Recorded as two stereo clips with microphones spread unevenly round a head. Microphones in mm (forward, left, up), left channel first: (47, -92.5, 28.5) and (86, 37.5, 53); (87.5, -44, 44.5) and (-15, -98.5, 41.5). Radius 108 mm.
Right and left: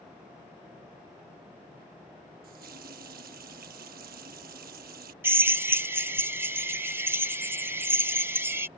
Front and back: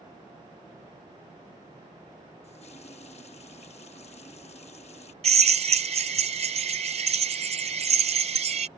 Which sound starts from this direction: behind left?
A drill, at 5.2 s.